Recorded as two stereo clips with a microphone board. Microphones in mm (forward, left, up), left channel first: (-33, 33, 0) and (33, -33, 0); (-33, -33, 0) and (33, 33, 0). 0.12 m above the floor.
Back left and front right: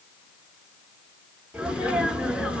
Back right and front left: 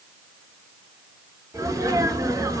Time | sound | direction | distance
1.5 | a sneeze | 25° left | 1.5 m